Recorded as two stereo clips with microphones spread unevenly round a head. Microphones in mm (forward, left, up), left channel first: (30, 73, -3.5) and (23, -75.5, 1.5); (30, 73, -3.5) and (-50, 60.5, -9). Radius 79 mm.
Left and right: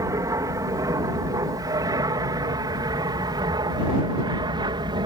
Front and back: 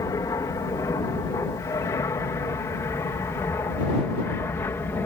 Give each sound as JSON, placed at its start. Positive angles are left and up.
{"t": 0.0, "sound": "an aircraft", "azimuth_deg": -30}